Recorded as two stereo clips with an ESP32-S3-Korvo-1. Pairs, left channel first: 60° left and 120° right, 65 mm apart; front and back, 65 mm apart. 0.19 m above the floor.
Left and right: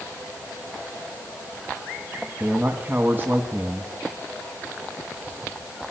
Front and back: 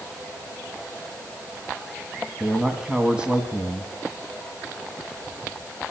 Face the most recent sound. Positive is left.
turn(degrees=-120)